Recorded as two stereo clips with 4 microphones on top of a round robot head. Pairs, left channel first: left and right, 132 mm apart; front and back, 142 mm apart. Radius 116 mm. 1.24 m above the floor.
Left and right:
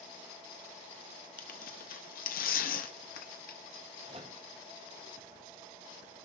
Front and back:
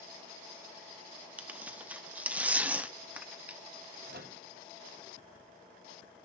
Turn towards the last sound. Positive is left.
turn(degrees=-150)